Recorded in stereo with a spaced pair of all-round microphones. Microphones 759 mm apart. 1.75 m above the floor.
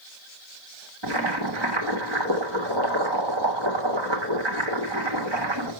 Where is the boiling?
35° right (ahead or behind), 1.7 m.